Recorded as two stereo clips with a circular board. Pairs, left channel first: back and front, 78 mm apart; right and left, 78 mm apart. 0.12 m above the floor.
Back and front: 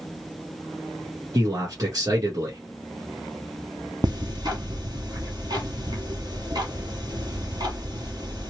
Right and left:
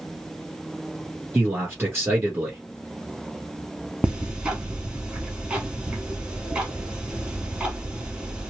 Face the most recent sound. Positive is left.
turn(degrees=15)